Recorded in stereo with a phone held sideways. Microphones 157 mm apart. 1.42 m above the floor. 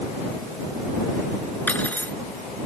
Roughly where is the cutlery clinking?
Centre.